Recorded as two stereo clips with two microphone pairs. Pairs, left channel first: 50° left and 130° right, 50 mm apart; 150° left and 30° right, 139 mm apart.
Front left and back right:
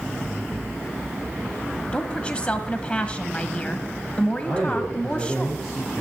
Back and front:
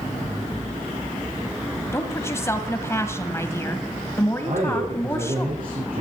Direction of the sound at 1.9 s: 100° left.